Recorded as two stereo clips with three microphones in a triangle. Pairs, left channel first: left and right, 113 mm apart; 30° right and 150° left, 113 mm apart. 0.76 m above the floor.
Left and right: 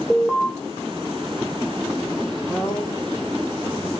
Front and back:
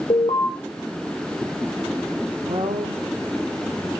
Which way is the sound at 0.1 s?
5° left.